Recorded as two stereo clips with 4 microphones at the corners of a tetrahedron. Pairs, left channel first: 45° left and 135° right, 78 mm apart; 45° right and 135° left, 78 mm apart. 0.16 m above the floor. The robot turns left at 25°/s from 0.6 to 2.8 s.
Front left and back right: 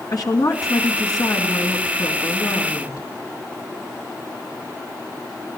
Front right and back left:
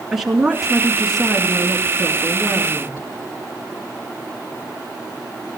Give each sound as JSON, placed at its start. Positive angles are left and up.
{"t": 0.1, "sound": "a woman speaking", "azimuth_deg": 50, "distance_m": 3.0}